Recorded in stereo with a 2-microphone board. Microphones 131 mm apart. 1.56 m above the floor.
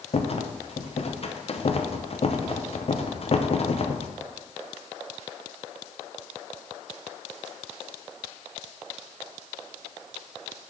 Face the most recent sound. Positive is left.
turn(degrees=50)  # may be behind; listen again after turning